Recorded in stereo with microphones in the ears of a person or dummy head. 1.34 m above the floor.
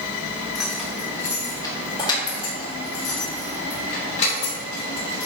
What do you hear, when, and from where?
0.6 s keys jangling: 5° right (ahead or behind), 1.0 m; by 5.3 s 40° left (ahead or behind), 3.5 m